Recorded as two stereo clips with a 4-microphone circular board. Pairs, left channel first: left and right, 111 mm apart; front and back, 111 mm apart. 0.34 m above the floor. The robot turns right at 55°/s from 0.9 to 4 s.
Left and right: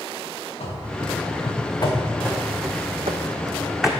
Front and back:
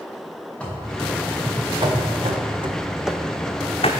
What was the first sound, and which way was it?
Running footsteps, 80° left.